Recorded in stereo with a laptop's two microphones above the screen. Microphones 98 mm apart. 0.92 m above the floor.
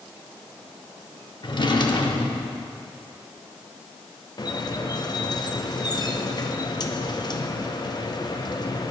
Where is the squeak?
45° left (ahead or behind), 0.6 m.